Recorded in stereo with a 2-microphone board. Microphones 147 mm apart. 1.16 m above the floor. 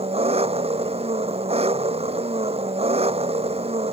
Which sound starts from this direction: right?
An engine running, at 0.0 s.